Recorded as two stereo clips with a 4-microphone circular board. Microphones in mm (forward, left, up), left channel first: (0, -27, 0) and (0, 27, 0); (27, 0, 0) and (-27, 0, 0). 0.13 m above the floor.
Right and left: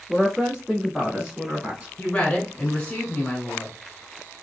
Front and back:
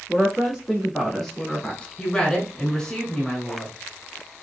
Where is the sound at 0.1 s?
165° left, 1.2 m; by 1.9 s 45° left, 1.2 m.